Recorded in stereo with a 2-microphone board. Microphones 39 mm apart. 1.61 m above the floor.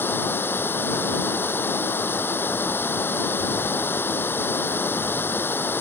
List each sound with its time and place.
0.0 s running water: 70° left (ahead or behind)